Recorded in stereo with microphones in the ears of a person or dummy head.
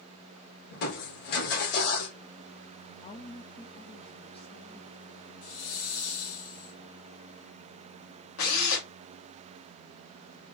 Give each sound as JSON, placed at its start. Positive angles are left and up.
{"t": 0.7, "sound": "crushing", "side_deg": 55, "distance_m": 1.9}
{"t": 3.0, "sound": "a woman speaking", "side_deg": 30, "distance_m": 0.8}
{"t": 5.4, "sound": "a hiss", "side_deg": 70, "distance_m": 2.0}
{"t": 8.4, "sound": "a drill", "side_deg": 80, "distance_m": 2.0}